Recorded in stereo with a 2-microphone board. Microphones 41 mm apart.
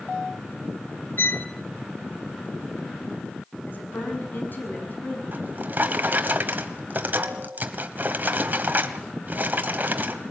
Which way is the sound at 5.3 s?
45° right (ahead or behind).